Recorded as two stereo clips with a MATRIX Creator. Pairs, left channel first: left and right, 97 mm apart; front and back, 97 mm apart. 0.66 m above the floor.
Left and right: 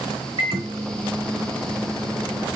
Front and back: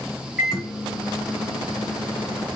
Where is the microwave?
95° right, 1.3 m.